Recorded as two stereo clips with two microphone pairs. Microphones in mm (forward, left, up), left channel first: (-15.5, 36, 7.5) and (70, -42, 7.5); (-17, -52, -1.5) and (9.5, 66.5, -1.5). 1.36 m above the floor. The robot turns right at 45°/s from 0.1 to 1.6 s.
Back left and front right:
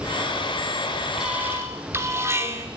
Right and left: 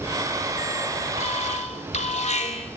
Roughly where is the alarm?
Behind right.